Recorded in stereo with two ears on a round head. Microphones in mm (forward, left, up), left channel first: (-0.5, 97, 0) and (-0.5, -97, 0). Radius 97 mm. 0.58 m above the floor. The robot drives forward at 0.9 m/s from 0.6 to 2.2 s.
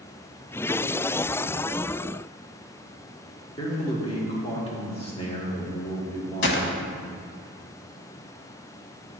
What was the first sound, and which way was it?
A man speaking, 25° left (ahead or behind).